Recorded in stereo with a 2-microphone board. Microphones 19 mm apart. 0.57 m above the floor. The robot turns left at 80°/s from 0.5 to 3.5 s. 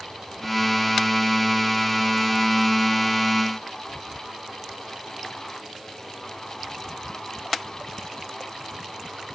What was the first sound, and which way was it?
Only background noise.